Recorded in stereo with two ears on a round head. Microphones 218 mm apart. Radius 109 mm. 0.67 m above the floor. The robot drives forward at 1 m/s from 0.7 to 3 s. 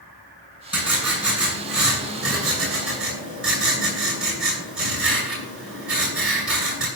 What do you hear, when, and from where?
0.7 s writing: 5° right (ahead or behind), 8 m